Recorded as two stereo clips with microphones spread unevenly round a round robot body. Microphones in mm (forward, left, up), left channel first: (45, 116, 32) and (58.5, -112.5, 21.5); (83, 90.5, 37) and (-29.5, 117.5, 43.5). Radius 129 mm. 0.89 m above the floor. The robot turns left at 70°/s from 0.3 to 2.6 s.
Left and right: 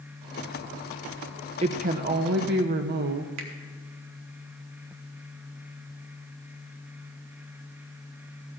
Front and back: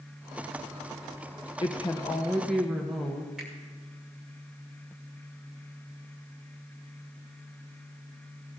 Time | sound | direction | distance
1.6 | a woman speaking | 35° right | 0.7 m
3.4 | a finger snap | 105° right | 1.9 m